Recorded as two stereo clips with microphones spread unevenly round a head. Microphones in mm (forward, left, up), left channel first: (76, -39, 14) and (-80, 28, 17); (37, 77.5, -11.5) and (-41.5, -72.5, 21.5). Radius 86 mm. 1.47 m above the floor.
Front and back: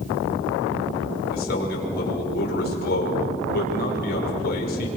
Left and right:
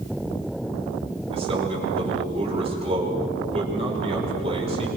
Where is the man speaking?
60° right, 6 m.